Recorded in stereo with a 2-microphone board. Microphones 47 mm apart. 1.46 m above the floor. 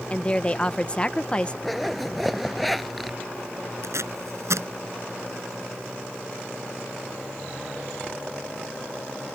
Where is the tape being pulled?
85° right.